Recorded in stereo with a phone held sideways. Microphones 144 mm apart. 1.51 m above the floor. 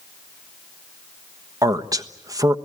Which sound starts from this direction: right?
A man speaking, at 1.6 s.